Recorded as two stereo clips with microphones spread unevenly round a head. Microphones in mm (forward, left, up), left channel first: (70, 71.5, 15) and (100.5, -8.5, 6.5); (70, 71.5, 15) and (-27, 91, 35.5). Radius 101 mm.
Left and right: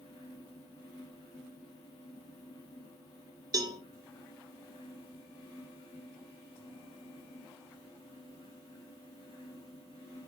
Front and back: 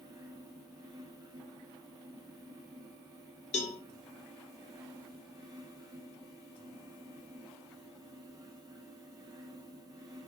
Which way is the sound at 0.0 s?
115° left.